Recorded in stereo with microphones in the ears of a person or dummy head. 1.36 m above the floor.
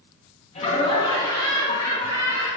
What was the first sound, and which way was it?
Laughter, 35° left (ahead or behind).